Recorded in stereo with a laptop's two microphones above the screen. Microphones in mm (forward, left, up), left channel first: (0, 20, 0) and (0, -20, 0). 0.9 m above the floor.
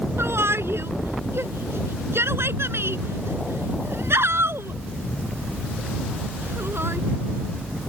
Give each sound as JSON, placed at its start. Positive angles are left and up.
{"t": 0.2, "sound": "a shout", "side_deg": -80}